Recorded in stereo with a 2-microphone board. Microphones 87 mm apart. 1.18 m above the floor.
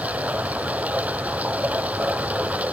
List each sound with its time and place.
0.0 s running water: 15° right (ahead or behind)